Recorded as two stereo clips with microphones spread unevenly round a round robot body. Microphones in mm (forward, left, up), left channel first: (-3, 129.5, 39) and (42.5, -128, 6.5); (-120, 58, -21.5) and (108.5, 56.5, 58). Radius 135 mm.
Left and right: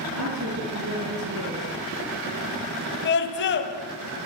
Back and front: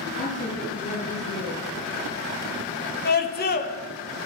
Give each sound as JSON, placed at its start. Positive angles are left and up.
{"t": 0.2, "sound": "a woman speaking", "azimuth_deg": -120, "distance_m": 6.5}
{"t": 3.0, "sound": "a scream", "azimuth_deg": 150, "distance_m": 2.5}